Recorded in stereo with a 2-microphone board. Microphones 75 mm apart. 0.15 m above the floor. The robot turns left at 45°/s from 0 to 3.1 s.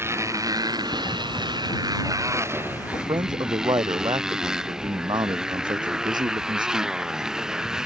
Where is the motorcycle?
30° right; by 7.9 s 170° right.